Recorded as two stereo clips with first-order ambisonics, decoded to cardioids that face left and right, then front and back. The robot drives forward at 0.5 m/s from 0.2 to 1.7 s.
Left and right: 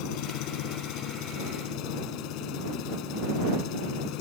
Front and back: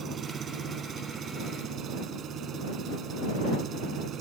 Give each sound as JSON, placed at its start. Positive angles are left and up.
{"t": 0.0, "sound": "an engine running", "azimuth_deg": 115}